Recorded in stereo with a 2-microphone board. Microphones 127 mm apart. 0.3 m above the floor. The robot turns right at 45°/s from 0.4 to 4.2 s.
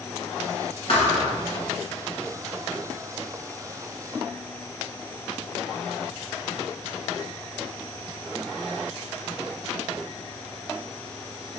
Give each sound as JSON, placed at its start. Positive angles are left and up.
{"t": 0.9, "sound": "a thud", "side_deg": 60, "distance_m": 1.2}